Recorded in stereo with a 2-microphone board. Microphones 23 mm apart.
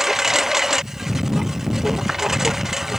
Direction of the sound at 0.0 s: 15° right (ahead or behind).